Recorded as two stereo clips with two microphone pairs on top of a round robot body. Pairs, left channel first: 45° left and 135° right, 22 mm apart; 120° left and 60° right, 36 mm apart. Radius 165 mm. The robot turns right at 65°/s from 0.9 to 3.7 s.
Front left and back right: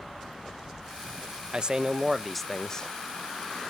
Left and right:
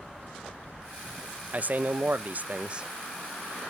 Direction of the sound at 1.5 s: 90° right.